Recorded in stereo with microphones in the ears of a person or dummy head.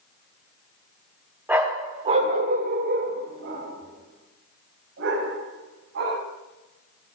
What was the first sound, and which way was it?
A dog barking, 5° right (ahead or behind).